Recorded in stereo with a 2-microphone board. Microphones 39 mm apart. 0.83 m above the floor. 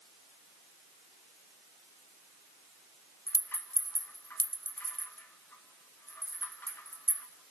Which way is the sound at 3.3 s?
60° left (ahead or behind).